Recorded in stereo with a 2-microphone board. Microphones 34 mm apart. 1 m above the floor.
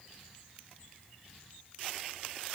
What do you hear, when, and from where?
Only background noise.